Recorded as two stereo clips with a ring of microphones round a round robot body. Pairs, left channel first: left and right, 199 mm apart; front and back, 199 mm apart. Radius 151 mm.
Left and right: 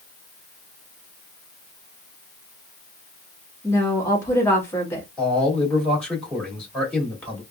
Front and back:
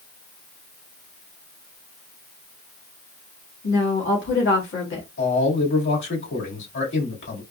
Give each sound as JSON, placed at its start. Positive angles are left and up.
{"t": 3.6, "sound": "a woman speaking", "azimuth_deg": 15, "distance_m": 1.6}
{"t": 5.2, "sound": "a man speaking", "azimuth_deg": 5, "distance_m": 2.5}